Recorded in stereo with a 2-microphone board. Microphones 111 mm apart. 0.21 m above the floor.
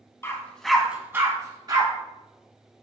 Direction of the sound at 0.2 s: 25° left (ahead or behind).